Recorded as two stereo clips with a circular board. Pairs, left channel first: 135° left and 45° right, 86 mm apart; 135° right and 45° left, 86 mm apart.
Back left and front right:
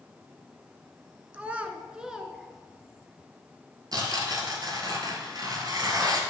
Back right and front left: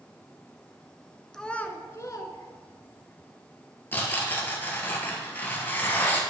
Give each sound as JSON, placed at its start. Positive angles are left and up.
{"t": 1.3, "sound": "a child speaking", "azimuth_deg": -60, "distance_m": 0.6}
{"t": 3.9, "sound": "tearing paper", "azimuth_deg": -75, "distance_m": 1.4}